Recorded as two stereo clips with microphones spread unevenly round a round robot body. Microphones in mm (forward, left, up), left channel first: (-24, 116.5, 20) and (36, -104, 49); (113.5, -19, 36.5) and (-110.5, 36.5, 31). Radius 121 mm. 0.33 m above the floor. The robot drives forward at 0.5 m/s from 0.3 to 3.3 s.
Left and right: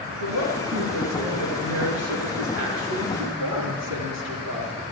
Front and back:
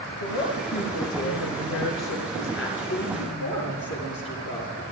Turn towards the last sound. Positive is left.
turn(degrees=-55)